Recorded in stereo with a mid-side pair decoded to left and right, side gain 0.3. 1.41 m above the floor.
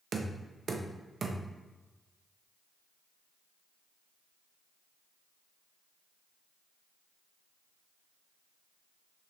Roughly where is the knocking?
Ahead right.